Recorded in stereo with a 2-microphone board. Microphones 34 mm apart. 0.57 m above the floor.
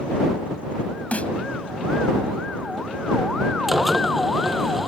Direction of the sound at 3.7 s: 5° right (ahead or behind).